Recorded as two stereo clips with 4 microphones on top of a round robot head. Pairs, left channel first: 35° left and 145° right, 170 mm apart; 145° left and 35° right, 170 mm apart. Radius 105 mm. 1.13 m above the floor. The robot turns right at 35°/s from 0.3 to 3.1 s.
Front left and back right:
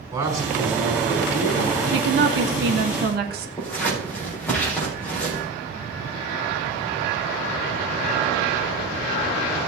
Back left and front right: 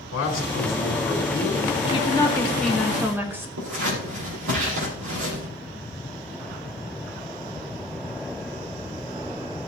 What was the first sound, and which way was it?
A man speaking, 145° left.